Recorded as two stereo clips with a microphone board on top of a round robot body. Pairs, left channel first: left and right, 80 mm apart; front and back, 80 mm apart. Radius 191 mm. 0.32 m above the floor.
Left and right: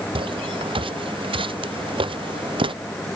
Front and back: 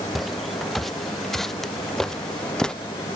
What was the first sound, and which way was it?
Footsteps, 90° right.